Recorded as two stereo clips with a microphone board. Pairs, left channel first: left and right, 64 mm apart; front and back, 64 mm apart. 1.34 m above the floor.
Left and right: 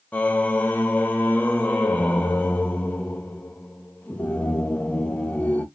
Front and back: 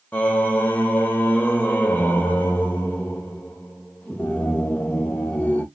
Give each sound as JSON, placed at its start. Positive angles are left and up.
{"t": 0.1, "sound": "singing", "azimuth_deg": 45, "distance_m": 0.7}